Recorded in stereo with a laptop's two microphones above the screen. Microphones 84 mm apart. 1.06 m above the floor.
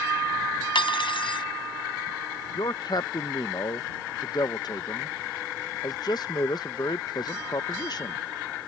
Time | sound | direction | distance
0.8 | cutlery clinking | 80° left | ?
2.5 | a man speaking | 55° left (ahead or behind) | ?